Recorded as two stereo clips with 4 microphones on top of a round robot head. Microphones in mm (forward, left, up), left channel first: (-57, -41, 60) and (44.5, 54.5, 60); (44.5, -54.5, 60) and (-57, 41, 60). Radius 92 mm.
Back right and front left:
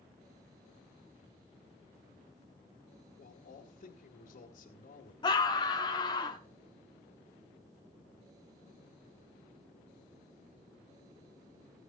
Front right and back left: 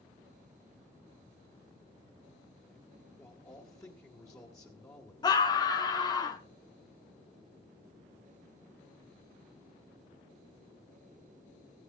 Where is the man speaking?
110° right, 2 m.